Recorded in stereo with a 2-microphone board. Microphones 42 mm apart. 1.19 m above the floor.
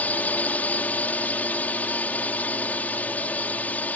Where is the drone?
40° left (ahead or behind).